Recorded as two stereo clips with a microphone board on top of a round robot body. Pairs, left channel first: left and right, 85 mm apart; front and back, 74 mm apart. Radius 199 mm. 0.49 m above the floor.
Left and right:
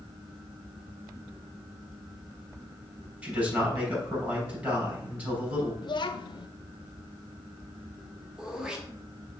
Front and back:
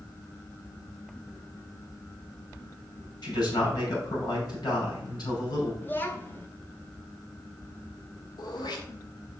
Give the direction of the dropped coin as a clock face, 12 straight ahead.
No dropped coin in this recording.